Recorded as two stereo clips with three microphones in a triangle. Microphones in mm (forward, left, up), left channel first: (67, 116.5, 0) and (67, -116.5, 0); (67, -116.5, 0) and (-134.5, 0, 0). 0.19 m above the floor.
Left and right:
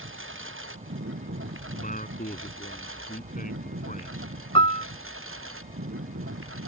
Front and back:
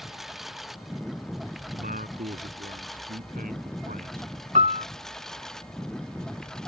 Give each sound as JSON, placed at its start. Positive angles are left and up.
{"t": 0.0, "sound": "a lawn mower", "azimuth_deg": -120}
{"t": 1.7, "sound": "a man speaking", "azimuth_deg": 120}
{"t": 4.5, "sound": "a piano", "azimuth_deg": 135}